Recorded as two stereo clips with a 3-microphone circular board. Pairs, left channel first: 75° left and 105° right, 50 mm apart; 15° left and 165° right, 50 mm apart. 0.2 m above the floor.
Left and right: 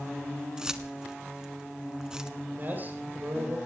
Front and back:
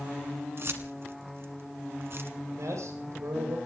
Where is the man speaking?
155° right, 8 m.